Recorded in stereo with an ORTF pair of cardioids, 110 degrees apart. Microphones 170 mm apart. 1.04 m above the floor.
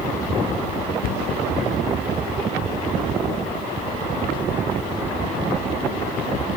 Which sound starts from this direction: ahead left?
A cupboard door, at 1.0 s.